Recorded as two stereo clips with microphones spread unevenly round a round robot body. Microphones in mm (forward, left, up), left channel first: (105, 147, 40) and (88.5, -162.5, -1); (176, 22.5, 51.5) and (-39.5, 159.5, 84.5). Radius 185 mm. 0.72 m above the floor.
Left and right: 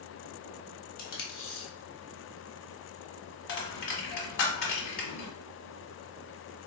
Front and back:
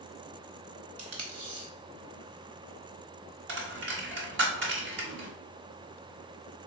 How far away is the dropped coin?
About 1.1 m.